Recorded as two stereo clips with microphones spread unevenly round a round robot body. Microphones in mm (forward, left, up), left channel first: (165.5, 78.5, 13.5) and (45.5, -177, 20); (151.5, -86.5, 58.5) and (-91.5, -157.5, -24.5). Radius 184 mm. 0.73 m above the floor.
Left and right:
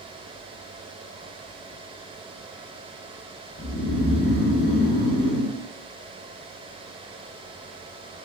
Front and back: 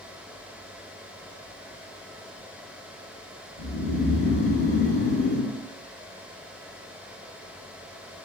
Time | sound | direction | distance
3.6 | snoring | 10° right | 1.6 m